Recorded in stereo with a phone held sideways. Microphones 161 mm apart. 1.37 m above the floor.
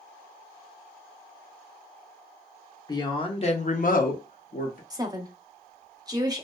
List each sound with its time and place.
2.9 s a woman speaking: 25° left (ahead or behind), 0.7 m; by 4.8 s 60° left (ahead or behind), 0.8 m
4.9 s a woman speaking: 25° right (ahead or behind), 0.5 m